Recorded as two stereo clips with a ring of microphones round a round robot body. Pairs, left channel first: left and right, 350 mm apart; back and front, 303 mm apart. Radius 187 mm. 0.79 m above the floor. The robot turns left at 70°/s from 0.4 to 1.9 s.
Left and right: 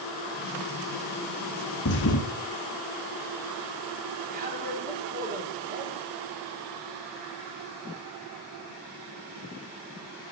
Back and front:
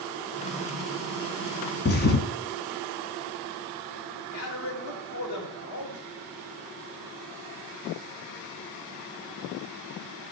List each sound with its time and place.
1.9 s a thud: 135° left, 1.0 m; by 2.3 s 130° left, 1.0 m
4.3 s a man speaking: 155° right, 2.5 m